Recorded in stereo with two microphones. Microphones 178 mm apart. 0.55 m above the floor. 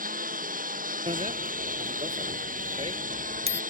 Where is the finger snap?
No finger snap in this recording.